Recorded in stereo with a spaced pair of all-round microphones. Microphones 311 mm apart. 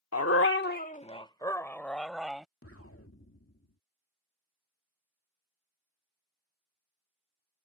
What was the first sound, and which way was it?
A dog barking, 55° left (ahead or behind).